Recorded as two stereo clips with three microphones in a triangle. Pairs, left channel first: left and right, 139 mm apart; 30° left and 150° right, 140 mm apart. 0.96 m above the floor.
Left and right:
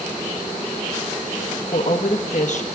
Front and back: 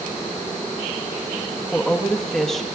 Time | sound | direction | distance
1.7 | a woman speaking | 115° left | 1.1 m